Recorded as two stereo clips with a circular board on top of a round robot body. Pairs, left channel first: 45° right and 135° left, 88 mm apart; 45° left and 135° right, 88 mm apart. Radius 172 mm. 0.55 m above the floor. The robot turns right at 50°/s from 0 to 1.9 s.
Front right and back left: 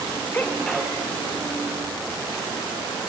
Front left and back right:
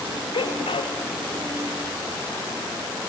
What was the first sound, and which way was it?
A sneeze, 25° left.